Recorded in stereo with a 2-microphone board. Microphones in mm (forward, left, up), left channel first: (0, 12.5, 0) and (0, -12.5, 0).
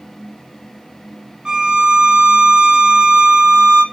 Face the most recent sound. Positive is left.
turn(degrees=-25)  # may be behind; listen again after turning